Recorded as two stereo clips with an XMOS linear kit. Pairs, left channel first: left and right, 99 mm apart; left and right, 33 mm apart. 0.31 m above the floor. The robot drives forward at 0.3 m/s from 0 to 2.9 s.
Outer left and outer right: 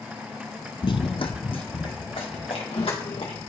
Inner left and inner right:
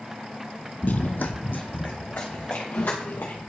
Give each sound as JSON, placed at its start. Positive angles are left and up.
{"t": 0.8, "sound": "running footsteps", "side_deg": 55, "distance_m": 0.5}